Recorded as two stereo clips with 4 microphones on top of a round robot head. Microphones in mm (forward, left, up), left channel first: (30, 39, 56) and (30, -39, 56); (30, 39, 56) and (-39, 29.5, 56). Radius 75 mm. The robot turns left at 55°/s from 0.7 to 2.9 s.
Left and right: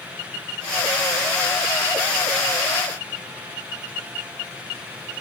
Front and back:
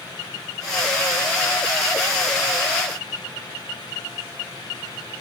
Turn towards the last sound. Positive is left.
No sound to turn to.